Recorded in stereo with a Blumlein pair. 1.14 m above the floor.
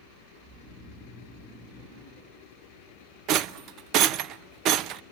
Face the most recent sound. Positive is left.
turn(degrees=-35)